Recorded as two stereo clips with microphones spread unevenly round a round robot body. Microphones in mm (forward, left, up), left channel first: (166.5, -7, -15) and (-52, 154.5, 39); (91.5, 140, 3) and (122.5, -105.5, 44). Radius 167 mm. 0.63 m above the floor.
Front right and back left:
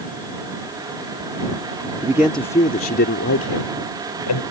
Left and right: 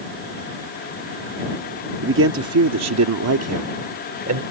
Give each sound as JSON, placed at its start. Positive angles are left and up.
{"t": 2.0, "sound": "a man speaking", "azimuth_deg": -130}